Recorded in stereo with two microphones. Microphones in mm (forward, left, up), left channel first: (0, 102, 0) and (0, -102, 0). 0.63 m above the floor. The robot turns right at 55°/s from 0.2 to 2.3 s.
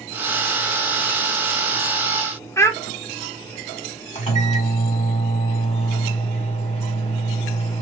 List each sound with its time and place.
2.6 s a child speaking: 15° left (ahead or behind), 0.7 m
4.2 s a microwave: 35° left (ahead or behind), 1.6 m